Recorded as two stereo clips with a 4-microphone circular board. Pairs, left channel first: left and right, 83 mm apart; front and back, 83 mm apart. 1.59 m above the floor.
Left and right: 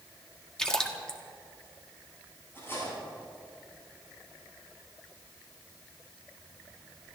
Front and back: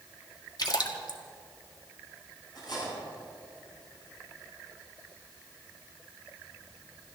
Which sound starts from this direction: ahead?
A splash, at 0.6 s.